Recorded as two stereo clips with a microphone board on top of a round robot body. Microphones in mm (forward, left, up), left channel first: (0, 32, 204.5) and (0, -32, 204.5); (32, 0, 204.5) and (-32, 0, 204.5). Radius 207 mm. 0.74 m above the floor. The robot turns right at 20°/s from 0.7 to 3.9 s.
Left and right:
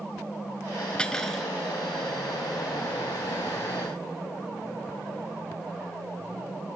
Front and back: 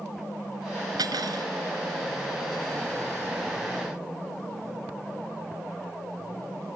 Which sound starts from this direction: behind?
Cutlery clinking, at 1.0 s.